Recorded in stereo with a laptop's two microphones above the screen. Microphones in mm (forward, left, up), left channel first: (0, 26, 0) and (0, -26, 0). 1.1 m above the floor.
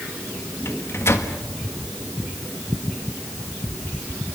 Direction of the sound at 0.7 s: 55° left (ahead or behind).